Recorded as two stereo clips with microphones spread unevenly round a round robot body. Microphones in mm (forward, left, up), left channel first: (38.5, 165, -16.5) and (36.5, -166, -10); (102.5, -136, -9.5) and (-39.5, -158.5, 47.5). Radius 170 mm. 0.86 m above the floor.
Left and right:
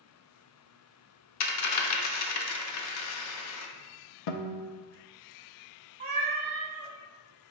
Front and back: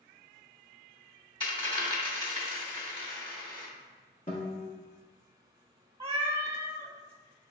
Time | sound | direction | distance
1.4 | a dropped coin | 95° left | 0.5 m
4.3 | a guitar | 80° left | 0.5 m
6.0 | a cat meowing | 115° right | 0.8 m